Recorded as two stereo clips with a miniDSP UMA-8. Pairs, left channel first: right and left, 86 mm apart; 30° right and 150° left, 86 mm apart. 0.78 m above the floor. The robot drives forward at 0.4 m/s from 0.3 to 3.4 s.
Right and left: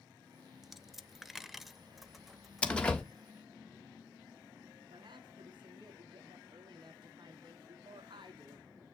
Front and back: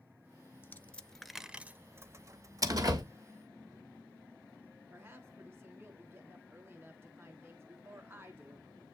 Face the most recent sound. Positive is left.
turn(degrees=90)